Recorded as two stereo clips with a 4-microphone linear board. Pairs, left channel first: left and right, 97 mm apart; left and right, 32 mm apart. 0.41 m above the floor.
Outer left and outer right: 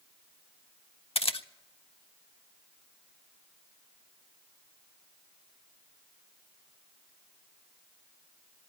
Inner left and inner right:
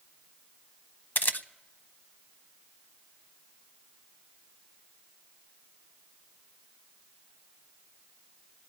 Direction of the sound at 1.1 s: 80° left.